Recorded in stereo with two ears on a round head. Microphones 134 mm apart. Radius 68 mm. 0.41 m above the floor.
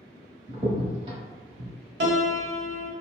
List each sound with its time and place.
0.5 s a crack: 35° right (ahead or behind), 1.0 m
2.0 s a piano: 90° right, 0.6 m